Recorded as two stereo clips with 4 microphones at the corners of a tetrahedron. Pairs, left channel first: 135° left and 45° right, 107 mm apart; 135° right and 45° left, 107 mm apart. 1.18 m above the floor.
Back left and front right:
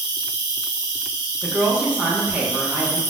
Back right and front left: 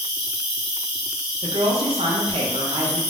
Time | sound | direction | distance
0.0 | an insect | 15° right | 1.9 m
1.4 | a woman speaking | 30° left | 0.6 m